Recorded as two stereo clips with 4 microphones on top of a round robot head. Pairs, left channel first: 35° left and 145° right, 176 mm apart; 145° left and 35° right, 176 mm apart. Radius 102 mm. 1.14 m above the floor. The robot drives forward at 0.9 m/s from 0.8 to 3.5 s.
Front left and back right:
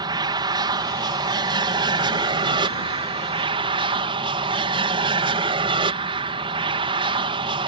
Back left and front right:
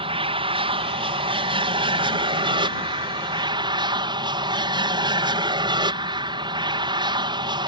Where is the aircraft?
85° right; by 7.7 s 90° right.